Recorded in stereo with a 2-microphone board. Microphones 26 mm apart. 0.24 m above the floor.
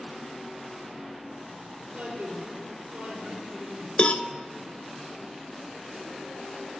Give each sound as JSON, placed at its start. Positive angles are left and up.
{"t": 1.9, "sound": "a man speaking", "side_deg": -80, "distance_m": 5.5}
{"t": 4.0, "sound": "a cowbell", "side_deg": 50, "distance_m": 0.6}